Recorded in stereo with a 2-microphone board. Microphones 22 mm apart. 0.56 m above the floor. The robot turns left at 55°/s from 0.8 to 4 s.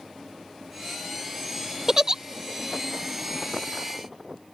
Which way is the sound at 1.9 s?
25° right (ahead or behind).